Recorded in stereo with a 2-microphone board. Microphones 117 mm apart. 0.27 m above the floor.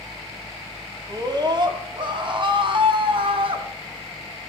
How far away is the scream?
About 1.8 m.